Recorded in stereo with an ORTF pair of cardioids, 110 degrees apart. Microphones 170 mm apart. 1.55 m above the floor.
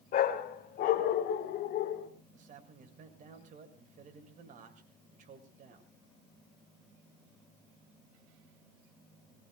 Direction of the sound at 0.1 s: 60° left.